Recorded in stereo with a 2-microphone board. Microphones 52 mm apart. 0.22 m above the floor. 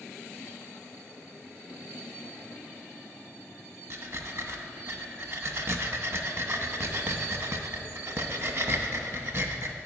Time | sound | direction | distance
3.9 | breathing | 50° right (ahead or behind) | 0.6 m